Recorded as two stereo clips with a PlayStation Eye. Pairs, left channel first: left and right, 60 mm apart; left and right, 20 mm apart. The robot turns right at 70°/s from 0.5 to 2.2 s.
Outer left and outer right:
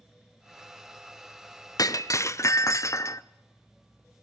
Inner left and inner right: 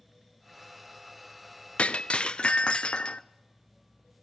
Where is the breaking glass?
85° left, 0.7 m; by 3.2 s 55° left (ahead or behind), 0.7 m.